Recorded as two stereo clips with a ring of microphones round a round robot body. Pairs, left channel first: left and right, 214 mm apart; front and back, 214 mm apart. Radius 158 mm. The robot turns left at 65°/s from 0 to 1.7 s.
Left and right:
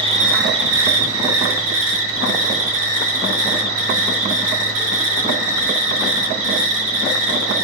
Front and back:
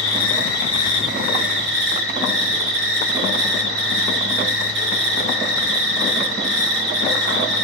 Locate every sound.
0.0 s an insect: 20° right, 1.9 m; by 7.7 s 130° right, 1.9 m